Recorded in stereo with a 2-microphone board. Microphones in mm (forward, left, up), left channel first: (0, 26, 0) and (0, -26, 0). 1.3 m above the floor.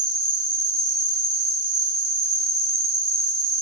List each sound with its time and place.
0.0 s an insect: 5° right (ahead or behind), 0.9 m